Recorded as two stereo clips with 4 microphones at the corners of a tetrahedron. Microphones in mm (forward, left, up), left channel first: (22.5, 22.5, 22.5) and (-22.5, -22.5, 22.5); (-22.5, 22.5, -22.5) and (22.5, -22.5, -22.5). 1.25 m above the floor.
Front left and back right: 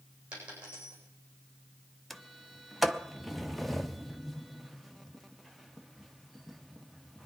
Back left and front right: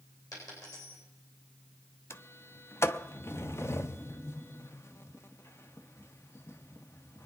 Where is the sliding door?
135° left, 0.7 m.